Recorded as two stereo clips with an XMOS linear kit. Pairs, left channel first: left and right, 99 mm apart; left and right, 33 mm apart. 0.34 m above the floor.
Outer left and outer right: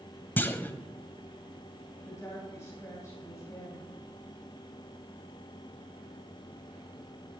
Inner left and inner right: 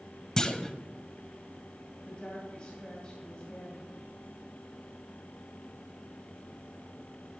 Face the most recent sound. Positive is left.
turn(degrees=30)  # may be behind; listen again after turning